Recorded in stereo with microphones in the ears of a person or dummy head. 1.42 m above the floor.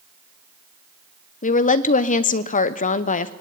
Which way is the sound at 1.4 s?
35° left (ahead or behind).